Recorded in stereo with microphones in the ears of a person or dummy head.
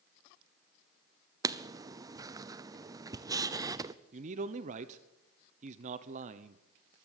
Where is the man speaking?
50° right (ahead or behind), 0.9 m.